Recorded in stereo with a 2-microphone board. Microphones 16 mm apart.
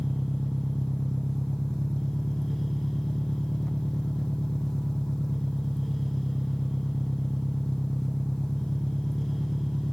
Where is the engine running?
60° left (ahead or behind).